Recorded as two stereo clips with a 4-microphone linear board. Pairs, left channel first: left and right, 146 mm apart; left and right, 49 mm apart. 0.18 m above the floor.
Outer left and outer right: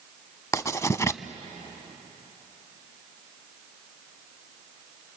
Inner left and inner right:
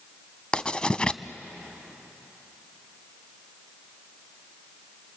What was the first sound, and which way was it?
Writing, 20° left (ahead or behind).